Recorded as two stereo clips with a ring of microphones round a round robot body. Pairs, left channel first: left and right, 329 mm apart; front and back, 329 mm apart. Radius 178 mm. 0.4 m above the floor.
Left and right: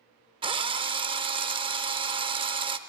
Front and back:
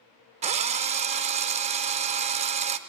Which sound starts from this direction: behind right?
A drill, at 0.4 s.